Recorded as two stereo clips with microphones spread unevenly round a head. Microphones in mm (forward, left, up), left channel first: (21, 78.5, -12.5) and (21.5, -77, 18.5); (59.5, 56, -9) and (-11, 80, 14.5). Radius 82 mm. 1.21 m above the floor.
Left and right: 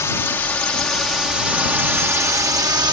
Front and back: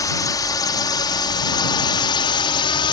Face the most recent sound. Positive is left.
turn(degrees=-25)